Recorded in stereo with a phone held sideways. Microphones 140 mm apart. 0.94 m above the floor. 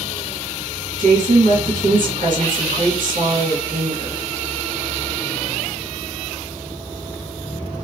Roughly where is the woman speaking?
Right.